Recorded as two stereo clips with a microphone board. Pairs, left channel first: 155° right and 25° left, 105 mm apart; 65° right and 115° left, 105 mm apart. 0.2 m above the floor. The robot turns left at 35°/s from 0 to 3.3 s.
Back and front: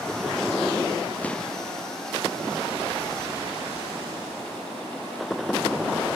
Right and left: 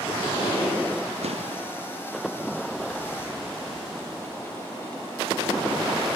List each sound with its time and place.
1.2 s an explosion: 125° left; by 1.6 s 115° left